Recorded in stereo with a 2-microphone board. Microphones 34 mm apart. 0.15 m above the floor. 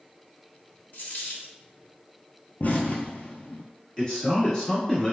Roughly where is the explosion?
Left.